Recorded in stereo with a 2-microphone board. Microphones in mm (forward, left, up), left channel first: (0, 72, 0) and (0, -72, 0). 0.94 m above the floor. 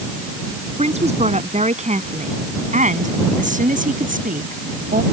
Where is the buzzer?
No buzzer in this recording.